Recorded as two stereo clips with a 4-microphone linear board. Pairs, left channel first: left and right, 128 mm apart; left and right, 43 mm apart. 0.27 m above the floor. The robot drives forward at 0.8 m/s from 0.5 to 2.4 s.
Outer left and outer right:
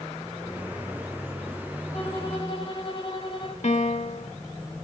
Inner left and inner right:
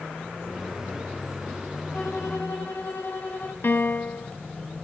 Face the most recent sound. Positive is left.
turn(degrees=60)  # may be behind; listen again after turning